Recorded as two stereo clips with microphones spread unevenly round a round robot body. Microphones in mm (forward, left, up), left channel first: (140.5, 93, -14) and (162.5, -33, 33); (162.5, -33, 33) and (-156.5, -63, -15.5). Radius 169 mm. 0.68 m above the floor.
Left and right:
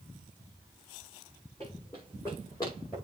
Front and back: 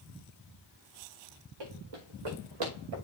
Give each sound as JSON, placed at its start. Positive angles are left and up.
{"t": 1.6, "sound": "running footsteps", "azimuth_deg": -175, "distance_m": 4.0}